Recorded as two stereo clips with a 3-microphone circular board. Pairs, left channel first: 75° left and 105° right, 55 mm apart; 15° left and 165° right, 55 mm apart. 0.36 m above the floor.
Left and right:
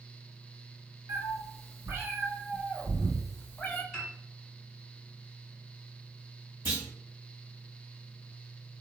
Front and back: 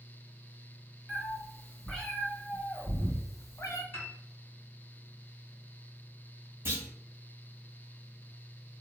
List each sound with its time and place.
1.1 s a cat meowing: 75° right, 1.3 m; by 3.8 s 20° left, 0.6 m
3.9 s a piano: 25° right, 1.4 m
6.7 s a clunk: 140° right, 1.3 m